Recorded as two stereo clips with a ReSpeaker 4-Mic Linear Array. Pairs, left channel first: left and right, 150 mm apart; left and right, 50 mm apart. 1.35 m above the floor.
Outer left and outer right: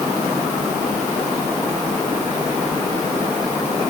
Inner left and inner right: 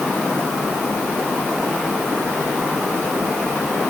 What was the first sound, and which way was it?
Only background noise.